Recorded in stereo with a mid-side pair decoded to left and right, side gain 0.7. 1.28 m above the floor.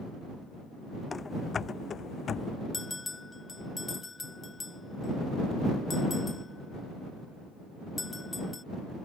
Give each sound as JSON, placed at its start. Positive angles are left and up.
{"t": 1.1, "sound": "running footsteps", "azimuth_deg": 20}
{"t": 2.7, "sound": "a bell", "azimuth_deg": 15}